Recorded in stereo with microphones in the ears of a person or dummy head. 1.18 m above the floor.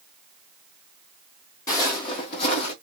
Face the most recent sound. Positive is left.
turn(degrees=40)  # may be behind; listen again after turning